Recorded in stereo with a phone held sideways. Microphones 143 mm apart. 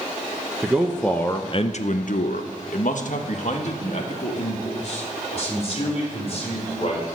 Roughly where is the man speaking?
Centre.